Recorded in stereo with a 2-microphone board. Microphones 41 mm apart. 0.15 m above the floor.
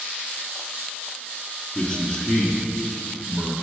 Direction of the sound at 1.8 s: 25° left (ahead or behind).